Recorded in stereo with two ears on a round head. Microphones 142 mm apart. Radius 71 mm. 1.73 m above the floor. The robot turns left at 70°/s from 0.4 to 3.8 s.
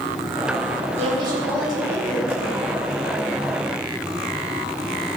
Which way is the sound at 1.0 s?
130° right.